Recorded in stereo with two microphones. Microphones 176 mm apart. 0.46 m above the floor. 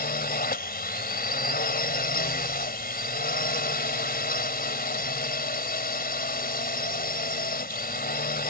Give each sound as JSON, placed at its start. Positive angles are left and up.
{"t": 0.0, "sound": "a drone", "side_deg": 60}